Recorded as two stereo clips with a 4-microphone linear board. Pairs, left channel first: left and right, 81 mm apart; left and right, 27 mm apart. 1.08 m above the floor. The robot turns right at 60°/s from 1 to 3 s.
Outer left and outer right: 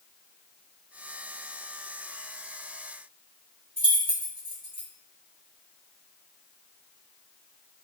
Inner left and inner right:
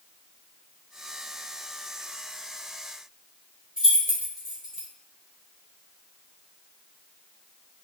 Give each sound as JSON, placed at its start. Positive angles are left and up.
{"t": 3.8, "sound": "keys jangling", "side_deg": -25, "distance_m": 1.2}